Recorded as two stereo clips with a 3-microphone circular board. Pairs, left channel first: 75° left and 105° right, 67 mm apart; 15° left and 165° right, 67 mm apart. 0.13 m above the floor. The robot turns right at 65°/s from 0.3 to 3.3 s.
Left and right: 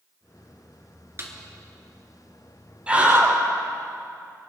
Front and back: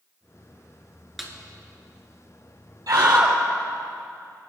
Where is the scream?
Straight behind, 3.5 m; by 3.4 s 150° right, 3.5 m.